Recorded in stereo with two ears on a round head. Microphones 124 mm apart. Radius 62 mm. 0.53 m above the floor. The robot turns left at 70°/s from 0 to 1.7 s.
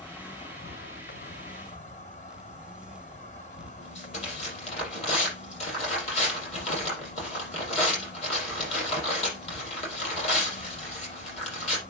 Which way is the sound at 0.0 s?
175° left.